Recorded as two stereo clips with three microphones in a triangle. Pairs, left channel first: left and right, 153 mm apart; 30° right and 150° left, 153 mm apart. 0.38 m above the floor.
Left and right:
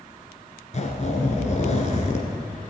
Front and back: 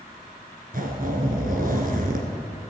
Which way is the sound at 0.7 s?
130° left.